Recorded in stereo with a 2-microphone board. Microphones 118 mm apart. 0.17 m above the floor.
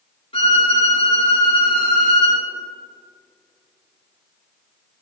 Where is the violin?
50° left (ahead or behind), 2.5 m.